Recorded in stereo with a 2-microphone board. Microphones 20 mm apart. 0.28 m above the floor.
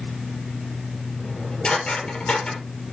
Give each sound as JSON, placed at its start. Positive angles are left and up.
{"t": 1.2, "sound": "dishes clattering", "side_deg": 50, "distance_m": 5.0}